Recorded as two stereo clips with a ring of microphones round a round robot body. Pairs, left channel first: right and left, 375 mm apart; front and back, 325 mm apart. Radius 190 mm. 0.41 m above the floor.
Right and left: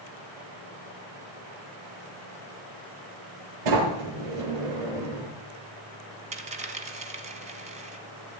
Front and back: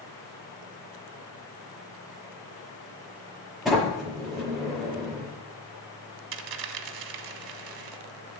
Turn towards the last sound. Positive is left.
turn(degrees=165)